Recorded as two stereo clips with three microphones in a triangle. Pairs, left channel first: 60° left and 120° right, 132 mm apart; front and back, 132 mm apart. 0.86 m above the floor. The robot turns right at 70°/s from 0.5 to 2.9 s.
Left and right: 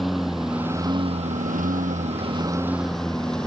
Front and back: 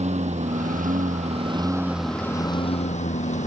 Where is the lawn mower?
150° left; by 3.5 s 25° right.